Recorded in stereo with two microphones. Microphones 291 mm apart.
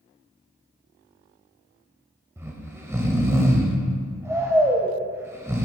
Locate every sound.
2.4 s snoring: 10° right (ahead or behind), 0.7 m